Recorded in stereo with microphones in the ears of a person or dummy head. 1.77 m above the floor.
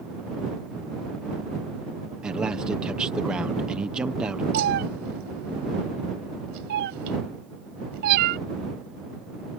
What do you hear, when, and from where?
2.2 s a man speaking: 5° right (ahead or behind)
4.5 s a cat meowing: 60° right (ahead or behind)